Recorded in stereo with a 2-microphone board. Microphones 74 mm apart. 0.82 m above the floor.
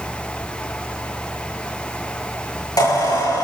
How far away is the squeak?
About 9.5 m.